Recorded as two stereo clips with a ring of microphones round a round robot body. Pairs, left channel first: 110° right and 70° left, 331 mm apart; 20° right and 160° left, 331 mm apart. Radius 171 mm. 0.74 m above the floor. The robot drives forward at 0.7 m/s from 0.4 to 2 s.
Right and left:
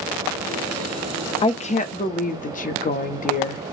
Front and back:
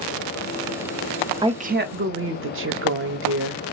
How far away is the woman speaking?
About 0.7 m.